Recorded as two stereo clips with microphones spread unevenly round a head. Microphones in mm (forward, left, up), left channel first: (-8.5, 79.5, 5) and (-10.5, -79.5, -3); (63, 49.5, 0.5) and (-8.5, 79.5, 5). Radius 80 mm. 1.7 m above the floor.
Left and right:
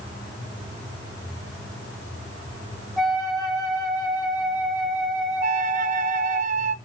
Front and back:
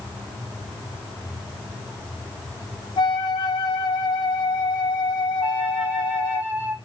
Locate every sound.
3.0 s a flute: straight ahead, 2 m
5.4 s a flute: 125° right, 0.6 m